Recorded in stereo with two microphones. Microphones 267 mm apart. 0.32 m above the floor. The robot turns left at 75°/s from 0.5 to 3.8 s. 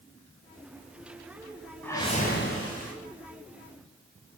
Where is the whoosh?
175° left, 1.5 m; by 2.9 s 90° left, 1.5 m.